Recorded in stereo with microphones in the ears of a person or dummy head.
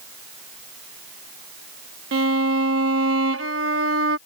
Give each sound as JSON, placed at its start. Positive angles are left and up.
{"t": 2.1, "sound": "a violin", "side_deg": -85}